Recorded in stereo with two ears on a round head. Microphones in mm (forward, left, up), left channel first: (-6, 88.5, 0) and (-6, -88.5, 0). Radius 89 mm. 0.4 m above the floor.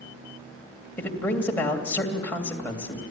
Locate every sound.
1.0 s a man speaking: 10° left (ahead or behind), 2.5 m